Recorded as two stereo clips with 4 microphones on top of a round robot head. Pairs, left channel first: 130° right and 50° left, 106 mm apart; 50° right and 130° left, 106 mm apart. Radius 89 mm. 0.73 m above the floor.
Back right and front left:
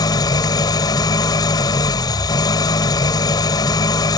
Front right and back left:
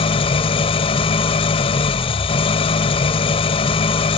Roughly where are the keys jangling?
No keys jangling in this recording.